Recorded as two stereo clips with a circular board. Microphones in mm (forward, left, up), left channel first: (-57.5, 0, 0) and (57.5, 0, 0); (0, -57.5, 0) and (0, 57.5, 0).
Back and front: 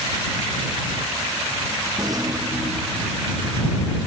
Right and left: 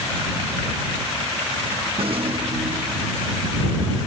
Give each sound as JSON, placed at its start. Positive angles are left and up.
{"t": 2.0, "sound": "a rattle", "azimuth_deg": 55}